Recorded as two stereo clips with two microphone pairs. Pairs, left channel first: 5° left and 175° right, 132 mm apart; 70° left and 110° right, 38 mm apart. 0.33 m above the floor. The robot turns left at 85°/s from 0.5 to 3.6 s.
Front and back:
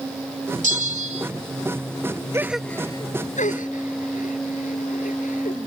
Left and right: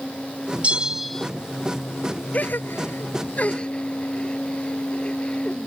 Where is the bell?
165° right; by 1.3 s 140° left.